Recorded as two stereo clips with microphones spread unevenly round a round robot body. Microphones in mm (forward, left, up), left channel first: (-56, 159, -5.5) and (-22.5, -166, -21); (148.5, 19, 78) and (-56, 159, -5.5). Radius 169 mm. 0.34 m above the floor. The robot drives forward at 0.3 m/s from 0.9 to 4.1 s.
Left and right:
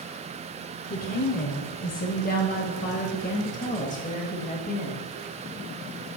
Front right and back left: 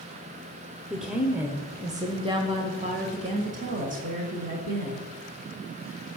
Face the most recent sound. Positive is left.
turn(degrees=160)